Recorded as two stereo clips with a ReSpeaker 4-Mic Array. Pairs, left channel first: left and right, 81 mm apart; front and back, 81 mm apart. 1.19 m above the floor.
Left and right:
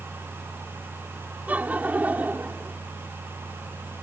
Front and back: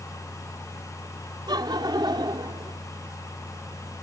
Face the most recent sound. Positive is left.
turn(degrees=-160)